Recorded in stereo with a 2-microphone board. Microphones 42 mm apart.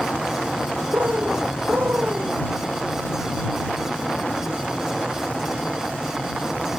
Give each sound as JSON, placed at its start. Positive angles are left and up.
{"t": 0.9, "sound": "a bird", "side_deg": -80}